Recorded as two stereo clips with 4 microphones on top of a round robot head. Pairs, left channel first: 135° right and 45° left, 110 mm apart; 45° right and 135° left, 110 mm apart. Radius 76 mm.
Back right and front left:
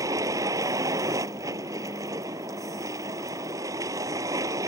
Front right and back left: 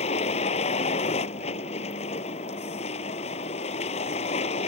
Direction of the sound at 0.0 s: 15° right.